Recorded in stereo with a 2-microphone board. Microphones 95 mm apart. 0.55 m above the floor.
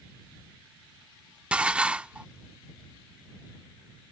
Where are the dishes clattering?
15° right (ahead or behind).